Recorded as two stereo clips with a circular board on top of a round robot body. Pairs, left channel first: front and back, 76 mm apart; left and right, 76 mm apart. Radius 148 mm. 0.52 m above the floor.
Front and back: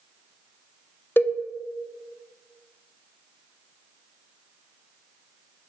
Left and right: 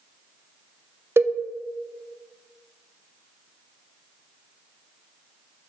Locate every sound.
1.2 s a cowbell: 50° right, 0.5 m